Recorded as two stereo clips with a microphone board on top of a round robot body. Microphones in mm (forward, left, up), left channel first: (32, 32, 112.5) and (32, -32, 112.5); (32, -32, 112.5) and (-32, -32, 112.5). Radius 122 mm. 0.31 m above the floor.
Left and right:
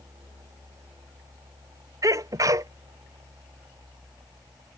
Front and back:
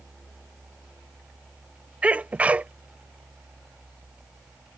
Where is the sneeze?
110° right.